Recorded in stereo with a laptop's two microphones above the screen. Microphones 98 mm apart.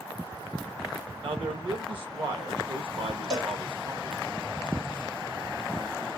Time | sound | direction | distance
1.2 | a man speaking | 60° right (ahead or behind) | 0.9 m
3.3 | a cowbell | 45° right (ahead or behind) | 1.7 m